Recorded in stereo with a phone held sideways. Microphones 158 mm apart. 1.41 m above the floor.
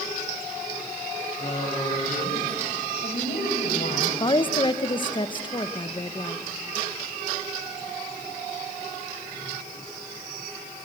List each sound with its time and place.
1.4 s a woman speaking: 45° left (ahead or behind), 7.5 m; by 4.1 s 70° left (ahead or behind), 7 m
4.2 s a woman speaking: 30° left (ahead or behind), 1.0 m